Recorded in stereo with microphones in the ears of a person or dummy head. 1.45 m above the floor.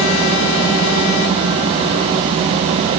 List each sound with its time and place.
Only background noise.